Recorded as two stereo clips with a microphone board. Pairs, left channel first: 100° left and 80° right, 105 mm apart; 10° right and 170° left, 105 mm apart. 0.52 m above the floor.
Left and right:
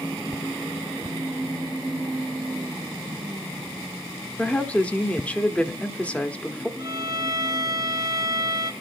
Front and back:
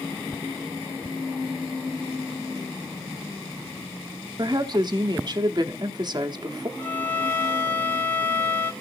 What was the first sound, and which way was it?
A woman speaking, 170° left.